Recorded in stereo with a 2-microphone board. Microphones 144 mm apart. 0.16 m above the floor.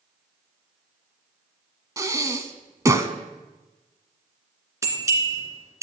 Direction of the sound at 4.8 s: 20° right (ahead or behind).